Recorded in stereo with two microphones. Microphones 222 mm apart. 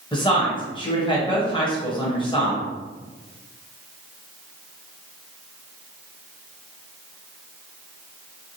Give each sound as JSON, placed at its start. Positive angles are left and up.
{"t": 0.1, "sound": "a woman speaking", "side_deg": 20, "distance_m": 0.9}